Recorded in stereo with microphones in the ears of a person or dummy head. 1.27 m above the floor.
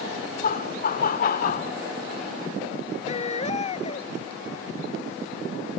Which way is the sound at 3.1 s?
35° left (ahead or behind).